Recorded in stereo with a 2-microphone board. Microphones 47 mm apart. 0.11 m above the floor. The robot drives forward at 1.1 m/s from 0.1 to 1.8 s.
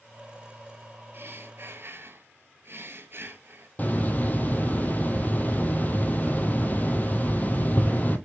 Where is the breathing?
45° right (ahead or behind), 1.5 m; by 3.7 s 55° right (ahead or behind), 1.3 m.